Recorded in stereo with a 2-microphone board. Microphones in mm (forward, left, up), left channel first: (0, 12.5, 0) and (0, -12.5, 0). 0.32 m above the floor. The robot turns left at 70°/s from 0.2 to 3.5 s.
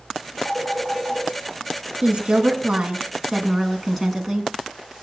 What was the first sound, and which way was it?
A phone ringing, 85° right.